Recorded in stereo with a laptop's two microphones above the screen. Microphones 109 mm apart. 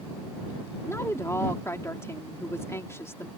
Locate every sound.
0.9 s a woman speaking: 25° left (ahead or behind)